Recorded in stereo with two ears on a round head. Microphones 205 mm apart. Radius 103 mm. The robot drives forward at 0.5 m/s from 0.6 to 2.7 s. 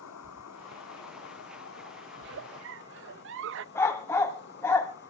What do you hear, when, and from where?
0.0 s an insect: 80° left, 1.2 m; by 5.1 s 50° left (ahead or behind), 1.4 m
2.2 s a giggle: 50° right (ahead or behind), 0.6 m; by 3.6 s 60° right (ahead or behind), 0.5 m
3.8 s a dog barking: 10° left (ahead or behind), 1.5 m